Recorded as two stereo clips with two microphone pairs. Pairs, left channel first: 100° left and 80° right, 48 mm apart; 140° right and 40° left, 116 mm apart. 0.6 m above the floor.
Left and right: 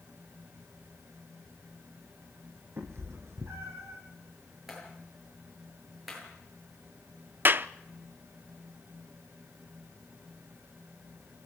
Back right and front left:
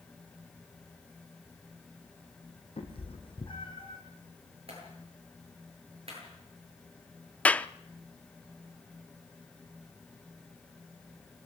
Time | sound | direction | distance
2.8 | a cat meowing | 105° right | 4 m
4.7 | a clap | 5° left | 9.5 m
7.5 | a clap | 60° right | 0.6 m